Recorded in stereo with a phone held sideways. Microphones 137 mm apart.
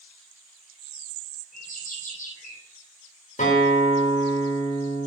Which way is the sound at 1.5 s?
70° left (ahead or behind).